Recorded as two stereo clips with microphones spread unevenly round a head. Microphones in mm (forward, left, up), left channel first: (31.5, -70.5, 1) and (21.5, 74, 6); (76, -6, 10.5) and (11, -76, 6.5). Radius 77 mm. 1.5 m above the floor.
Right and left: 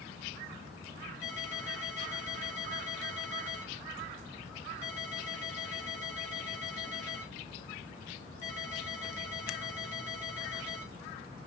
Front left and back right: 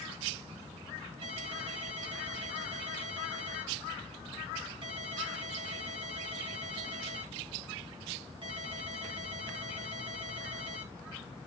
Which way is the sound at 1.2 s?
105° right.